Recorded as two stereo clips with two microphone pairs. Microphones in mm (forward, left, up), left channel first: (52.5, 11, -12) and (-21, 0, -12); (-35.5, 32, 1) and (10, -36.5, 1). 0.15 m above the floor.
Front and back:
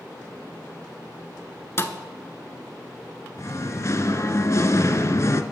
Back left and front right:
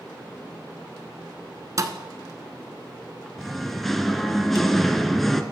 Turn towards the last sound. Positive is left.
turn(degrees=35)